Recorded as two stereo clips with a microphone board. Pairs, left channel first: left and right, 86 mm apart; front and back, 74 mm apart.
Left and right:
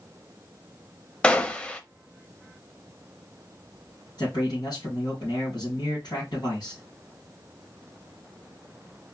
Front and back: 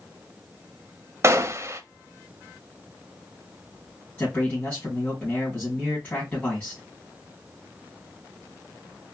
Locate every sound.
1.2 s a gunshot: 160° left, 0.6 m
4.2 s a man speaking: 65° left, 3 m